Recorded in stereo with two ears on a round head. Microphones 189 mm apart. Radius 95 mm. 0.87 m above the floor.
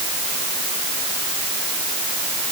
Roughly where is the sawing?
No sawing in this recording.